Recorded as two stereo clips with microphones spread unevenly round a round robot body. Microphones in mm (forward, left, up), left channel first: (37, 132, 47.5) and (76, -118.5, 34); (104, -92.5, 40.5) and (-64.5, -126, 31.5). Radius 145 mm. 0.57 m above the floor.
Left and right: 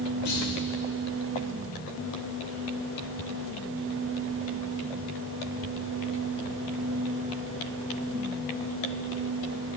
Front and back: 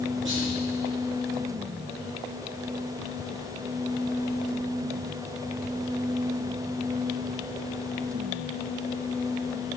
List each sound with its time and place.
0.2 s a clunk: 155° left, 3.5 m